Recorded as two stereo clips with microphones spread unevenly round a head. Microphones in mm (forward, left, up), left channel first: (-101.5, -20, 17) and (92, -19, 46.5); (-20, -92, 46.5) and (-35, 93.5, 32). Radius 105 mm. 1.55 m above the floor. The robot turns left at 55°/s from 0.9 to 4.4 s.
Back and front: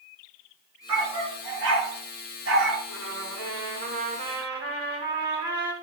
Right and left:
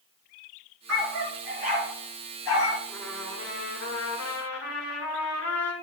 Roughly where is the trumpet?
Ahead.